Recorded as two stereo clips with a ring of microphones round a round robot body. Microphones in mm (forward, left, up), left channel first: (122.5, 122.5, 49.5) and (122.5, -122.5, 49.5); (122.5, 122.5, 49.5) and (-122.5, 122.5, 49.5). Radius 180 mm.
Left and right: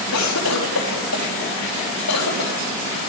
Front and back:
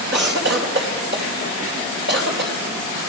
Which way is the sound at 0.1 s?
135° left.